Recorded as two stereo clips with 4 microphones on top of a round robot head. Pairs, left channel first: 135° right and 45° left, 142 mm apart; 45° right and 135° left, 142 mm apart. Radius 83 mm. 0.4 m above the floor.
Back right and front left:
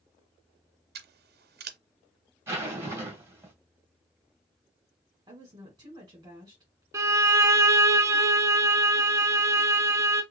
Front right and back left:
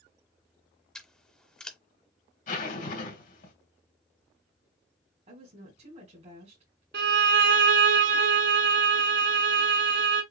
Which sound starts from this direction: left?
A woman speaking, at 5.3 s.